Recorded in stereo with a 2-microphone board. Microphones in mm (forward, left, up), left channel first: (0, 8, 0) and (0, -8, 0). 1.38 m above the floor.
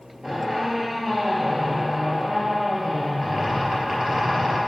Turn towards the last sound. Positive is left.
turn(degrees=-40)  # may be behind; listen again after turning